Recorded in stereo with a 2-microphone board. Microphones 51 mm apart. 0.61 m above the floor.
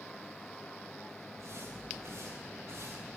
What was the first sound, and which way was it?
Footsteps, 55° right (ahead or behind).